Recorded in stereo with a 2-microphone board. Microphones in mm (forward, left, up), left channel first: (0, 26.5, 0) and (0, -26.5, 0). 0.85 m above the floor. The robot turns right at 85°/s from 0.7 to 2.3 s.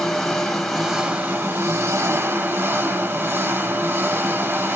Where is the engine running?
175° left, 1.1 m; by 4.8 s 50° right, 1.1 m.